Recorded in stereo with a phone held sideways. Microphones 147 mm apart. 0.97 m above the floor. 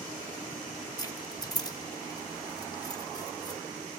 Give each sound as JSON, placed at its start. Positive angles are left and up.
{"t": 1.0, "sound": "keys jangling", "side_deg": 25, "distance_m": 0.7}